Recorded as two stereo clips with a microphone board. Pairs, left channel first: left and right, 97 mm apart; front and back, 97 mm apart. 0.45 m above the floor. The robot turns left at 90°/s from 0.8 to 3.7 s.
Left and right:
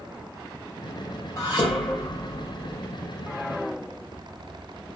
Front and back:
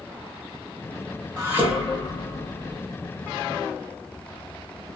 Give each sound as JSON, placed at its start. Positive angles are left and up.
{"t": 1.4, "sound": "dishes clattering", "azimuth_deg": 130, "distance_m": 1.5}